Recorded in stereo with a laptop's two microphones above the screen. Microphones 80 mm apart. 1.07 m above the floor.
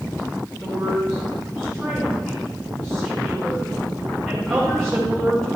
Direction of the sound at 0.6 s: 5° left (ahead or behind).